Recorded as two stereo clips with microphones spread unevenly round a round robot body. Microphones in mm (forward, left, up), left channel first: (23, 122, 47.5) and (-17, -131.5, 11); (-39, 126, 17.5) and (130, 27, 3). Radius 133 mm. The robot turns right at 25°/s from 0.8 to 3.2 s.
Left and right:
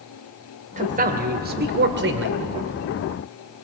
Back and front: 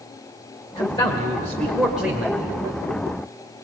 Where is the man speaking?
145° right, 1.5 m; by 2.4 s 105° right, 1.5 m.